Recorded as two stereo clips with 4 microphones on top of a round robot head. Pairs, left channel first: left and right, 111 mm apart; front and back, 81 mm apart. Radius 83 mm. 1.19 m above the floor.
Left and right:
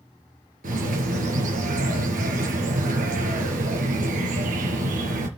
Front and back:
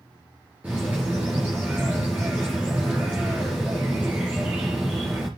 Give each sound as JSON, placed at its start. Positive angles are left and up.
{"t": 0.6, "sound": "a bird", "azimuth_deg": -100, "distance_m": 3.5}